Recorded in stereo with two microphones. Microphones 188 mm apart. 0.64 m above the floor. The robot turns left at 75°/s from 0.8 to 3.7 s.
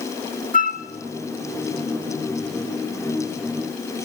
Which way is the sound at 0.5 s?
45° left (ahead or behind).